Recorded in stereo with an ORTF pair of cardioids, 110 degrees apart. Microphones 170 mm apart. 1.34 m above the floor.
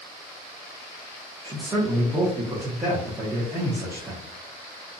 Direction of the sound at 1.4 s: 15° right.